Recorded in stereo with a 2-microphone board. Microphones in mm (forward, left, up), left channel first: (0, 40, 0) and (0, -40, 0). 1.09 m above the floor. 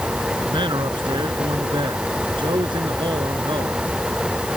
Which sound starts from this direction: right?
A man speaking, at 0.5 s.